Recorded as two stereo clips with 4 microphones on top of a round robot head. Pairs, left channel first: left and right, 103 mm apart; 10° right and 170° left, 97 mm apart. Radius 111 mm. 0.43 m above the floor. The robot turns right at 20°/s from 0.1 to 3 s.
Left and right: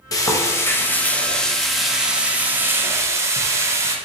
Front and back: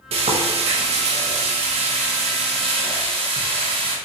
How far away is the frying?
About 0.5 m.